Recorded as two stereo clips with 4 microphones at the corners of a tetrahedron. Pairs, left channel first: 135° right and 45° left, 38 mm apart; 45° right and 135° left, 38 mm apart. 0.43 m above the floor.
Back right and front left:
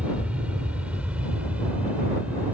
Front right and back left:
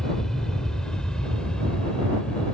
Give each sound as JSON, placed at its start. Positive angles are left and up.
{"t": 0.0, "sound": "an aircraft", "azimuth_deg": 25}